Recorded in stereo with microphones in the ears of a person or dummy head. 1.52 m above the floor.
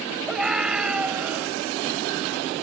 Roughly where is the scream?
Centre.